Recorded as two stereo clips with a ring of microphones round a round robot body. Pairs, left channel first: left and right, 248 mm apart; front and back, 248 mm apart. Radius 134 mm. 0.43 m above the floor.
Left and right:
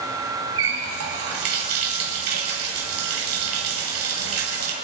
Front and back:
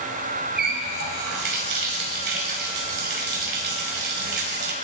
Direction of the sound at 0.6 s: 125° right.